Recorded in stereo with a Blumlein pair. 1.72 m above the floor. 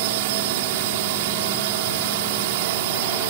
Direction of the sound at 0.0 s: 50° right.